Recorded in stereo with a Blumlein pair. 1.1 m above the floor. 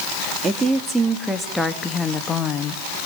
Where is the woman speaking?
15° right, 2.5 m; by 2.8 s 30° left, 1.8 m.